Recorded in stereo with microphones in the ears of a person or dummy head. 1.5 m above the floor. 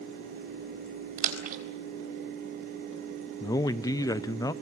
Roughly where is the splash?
Right.